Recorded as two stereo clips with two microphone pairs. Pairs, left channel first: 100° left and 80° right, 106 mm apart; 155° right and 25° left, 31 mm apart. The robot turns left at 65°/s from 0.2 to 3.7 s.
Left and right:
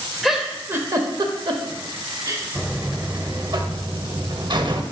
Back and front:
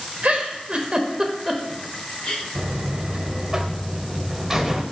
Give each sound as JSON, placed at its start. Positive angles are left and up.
{"t": 0.2, "sound": "a giggle", "azimuth_deg": 10, "distance_m": 0.9}
{"t": 2.5, "sound": "a buzzer", "azimuth_deg": 20, "distance_m": 0.8}